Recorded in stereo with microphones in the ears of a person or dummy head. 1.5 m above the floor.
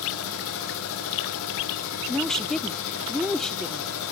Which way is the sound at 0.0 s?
75° left (ahead or behind).